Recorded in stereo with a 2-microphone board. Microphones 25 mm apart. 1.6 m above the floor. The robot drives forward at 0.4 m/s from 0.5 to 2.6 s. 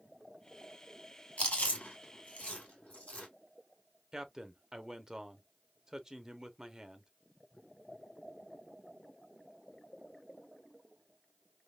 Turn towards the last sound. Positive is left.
turn(degrees=-20)  # may be behind; listen again after turning